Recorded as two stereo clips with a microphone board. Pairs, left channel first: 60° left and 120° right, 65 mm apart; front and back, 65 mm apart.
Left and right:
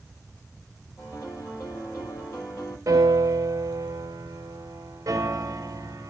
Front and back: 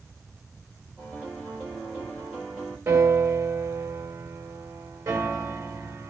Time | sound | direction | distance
1.0 | a piano | 120° left | 7 m
2.9 | a piano | 150° right | 2 m